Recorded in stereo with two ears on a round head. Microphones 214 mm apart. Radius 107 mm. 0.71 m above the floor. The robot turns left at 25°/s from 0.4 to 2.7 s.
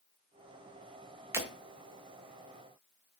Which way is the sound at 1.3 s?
10° right (ahead or behind).